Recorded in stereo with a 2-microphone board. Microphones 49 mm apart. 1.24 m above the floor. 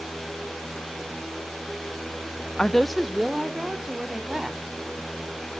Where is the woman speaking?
15° left (ahead or behind), 0.5 m; by 4.8 s 15° right (ahead or behind), 3 m.